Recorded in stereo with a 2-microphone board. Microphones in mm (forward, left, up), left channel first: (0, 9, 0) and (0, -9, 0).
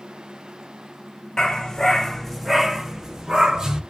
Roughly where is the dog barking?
Left.